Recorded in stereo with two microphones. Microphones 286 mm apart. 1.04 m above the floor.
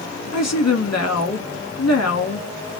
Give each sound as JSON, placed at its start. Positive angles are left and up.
{"t": 0.3, "sound": "a woman speaking", "side_deg": 60, "distance_m": 1.9}